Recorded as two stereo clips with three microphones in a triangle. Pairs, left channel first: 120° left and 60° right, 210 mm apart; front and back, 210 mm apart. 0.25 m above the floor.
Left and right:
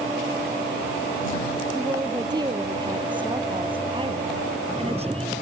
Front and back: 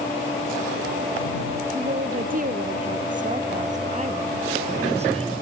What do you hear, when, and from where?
1.8 s a woman speaking: 130° right; by 5.4 s 120° right